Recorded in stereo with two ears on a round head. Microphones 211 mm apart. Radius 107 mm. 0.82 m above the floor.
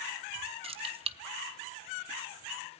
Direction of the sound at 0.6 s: 25° right (ahead or behind).